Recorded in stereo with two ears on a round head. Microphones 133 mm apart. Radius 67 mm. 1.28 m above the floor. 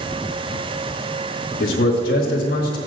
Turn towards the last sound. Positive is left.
turn(degrees=75)  # may be behind; listen again after turning